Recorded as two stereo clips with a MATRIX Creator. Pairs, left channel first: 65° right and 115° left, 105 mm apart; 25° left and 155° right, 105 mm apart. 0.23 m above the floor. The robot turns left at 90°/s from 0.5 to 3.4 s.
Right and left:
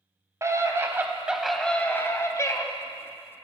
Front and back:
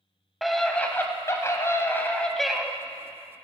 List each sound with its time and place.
0.4 s a scream: 110° left, 1.3 m; by 2.6 s 80° right, 1.3 m